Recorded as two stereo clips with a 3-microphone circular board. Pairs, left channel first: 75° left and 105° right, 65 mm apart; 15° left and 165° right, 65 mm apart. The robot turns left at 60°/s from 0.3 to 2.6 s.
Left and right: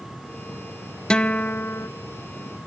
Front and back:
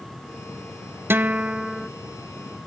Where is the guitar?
150° left, 0.6 m; by 1.9 s 100° left, 0.6 m.